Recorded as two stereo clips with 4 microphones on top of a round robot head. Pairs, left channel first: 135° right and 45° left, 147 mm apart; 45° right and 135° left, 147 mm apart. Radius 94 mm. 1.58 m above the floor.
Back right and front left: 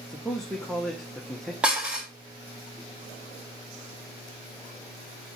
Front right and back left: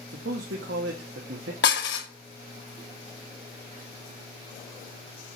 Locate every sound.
0.1 s a man speaking: 140° left, 1.3 m
1.6 s dishes clattering: 35° right, 1.2 m